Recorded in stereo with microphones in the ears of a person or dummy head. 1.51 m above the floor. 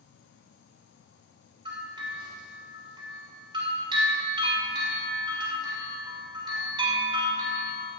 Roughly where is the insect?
Left.